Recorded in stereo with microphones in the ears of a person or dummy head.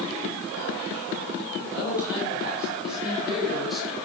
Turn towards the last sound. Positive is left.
turn(degrees=0)  # may be behind; listen again after turning